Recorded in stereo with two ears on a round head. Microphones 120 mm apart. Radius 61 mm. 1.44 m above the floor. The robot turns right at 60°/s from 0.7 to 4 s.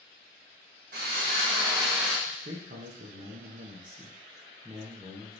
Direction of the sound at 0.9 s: 80° right.